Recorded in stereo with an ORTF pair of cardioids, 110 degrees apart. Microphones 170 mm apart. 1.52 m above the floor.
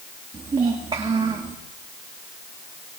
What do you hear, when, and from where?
0.3 s a child speaking: 30° right, 2.5 m